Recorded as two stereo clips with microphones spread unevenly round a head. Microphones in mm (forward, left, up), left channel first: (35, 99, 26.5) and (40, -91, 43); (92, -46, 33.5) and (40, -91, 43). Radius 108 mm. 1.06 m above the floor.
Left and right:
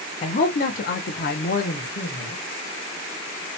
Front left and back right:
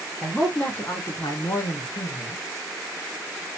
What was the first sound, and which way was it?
A man speaking, 130° left.